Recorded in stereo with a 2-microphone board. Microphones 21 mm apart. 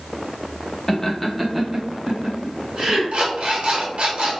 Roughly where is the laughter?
Centre.